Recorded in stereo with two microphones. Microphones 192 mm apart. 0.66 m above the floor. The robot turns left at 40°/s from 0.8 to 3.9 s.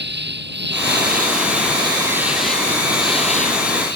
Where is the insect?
115° right; by 4.0 s 120° left.